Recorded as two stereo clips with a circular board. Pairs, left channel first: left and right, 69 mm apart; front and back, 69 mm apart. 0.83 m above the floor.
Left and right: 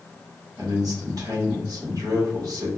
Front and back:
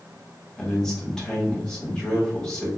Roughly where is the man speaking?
Right.